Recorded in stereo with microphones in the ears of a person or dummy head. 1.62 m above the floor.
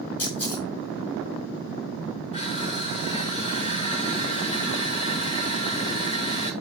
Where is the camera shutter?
25° left (ahead or behind), 6 m.